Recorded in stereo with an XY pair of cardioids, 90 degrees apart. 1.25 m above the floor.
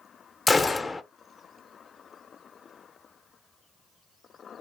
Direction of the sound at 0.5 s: 25° left.